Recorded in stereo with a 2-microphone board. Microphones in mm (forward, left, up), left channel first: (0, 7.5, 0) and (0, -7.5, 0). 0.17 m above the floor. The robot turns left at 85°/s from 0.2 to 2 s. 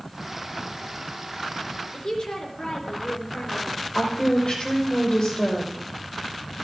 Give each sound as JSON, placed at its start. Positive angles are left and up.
{"t": 1.9, "sound": "a woman speaking", "side_deg": 55, "distance_m": 3.5}
{"t": 4.0, "sound": "a woman speaking", "side_deg": 50, "distance_m": 6.0}